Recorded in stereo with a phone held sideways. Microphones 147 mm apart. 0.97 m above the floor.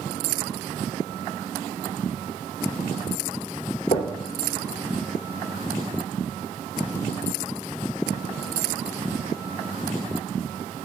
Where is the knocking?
50° left (ahead or behind), 2.5 m.